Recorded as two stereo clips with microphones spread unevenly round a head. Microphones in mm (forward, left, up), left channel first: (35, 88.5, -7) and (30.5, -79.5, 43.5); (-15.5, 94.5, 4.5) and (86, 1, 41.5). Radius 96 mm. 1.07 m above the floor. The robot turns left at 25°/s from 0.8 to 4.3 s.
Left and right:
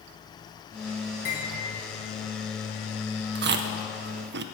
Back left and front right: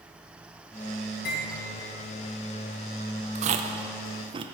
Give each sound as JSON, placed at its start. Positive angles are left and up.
{"t": 1.2, "sound": "cutlery clinking", "azimuth_deg": 140, "distance_m": 4.0}
{"t": 3.4, "sound": "chewing", "azimuth_deg": -80, "distance_m": 0.6}